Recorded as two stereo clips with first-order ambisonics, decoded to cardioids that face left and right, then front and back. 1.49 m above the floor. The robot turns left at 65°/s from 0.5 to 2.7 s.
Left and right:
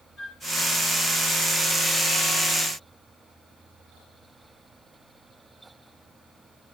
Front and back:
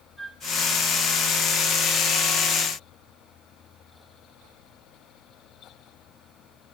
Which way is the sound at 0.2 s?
70° left.